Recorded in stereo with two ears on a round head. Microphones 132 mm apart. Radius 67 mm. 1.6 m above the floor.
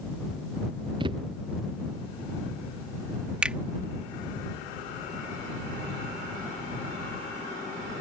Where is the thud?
35° right (ahead or behind).